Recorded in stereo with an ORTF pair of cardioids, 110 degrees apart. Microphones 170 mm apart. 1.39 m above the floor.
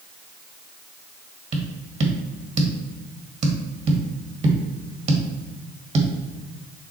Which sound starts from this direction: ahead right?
Tapping, at 1.5 s.